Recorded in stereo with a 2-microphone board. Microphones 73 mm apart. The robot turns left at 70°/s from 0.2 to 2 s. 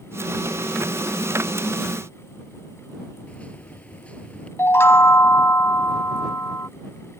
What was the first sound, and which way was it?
A microwave, 20° left (ahead or behind).